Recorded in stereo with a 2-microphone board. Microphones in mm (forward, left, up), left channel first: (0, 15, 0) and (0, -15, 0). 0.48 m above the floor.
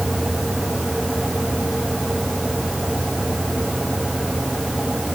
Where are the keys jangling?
I don't hear keys jangling.